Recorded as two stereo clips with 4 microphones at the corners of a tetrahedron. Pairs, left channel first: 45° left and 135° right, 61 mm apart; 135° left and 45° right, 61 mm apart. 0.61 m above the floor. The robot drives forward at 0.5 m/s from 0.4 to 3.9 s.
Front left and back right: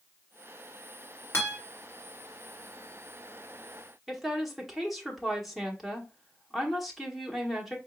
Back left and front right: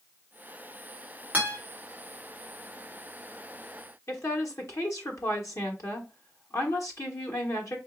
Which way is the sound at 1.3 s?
10° left.